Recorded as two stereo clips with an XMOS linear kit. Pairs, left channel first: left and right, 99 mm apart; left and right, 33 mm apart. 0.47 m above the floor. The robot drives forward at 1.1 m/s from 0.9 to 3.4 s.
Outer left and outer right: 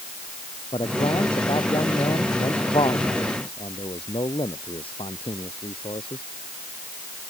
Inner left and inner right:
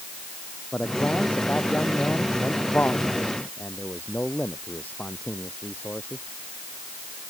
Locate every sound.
0.7 s a man speaking: 65° left (ahead or behind); by 6.2 s 75° left (ahead or behind)